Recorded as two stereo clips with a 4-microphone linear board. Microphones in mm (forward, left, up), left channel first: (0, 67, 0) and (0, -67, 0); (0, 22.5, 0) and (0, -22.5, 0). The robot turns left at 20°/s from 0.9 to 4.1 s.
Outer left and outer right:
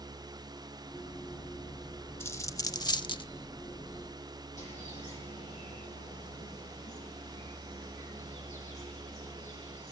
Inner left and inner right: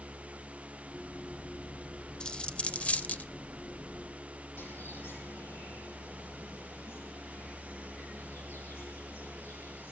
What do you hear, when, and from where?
2.2 s a dropped coin: 20° left (ahead or behind), 0.6 m; by 3.3 s 40° left (ahead or behind), 0.6 m
4.6 s a bird: 65° left (ahead or behind), 9.5 m